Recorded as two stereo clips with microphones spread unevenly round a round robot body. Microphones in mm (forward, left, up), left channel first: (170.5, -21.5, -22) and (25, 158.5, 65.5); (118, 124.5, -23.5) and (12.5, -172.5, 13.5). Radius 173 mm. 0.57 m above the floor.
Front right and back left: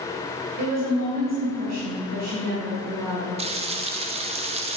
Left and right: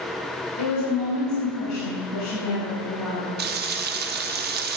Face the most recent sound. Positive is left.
turn(degrees=-150)